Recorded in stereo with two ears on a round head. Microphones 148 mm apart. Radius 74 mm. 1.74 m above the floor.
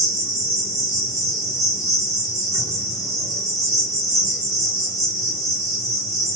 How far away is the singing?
I don't hear singing.